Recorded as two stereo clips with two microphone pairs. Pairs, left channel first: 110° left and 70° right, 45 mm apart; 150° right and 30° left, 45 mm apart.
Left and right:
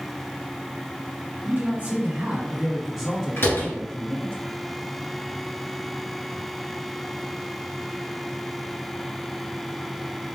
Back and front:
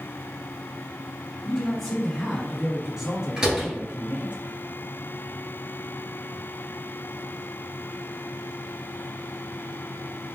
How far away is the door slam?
About 2 m.